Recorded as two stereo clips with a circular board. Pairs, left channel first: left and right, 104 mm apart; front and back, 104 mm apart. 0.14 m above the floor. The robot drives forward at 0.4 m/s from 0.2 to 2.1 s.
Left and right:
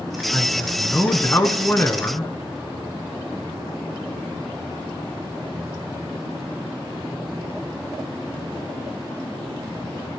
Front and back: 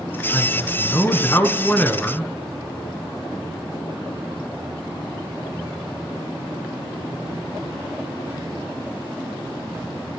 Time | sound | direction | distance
0.3 | a man speaking | 35° left | 1.8 m